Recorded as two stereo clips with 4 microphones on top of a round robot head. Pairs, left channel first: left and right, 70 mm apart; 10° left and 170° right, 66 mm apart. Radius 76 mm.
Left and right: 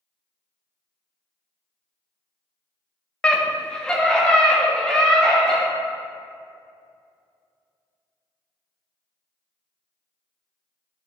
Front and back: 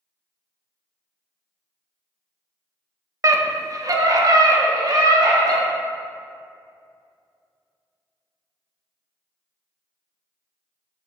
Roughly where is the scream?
Behind.